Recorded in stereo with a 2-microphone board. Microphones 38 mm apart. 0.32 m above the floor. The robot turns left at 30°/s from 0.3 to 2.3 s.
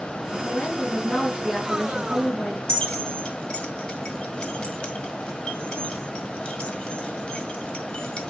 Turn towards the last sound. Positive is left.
turn(degrees=25)  # may be behind; listen again after turning